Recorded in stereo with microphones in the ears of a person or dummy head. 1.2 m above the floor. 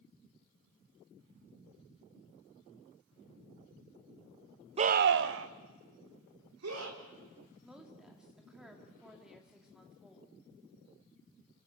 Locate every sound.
4.8 s a scream: 30° right (ahead or behind), 0.6 m; by 7.0 s 80° right, 3.5 m
7.6 s a woman speaking: 5° right (ahead or behind), 2.5 m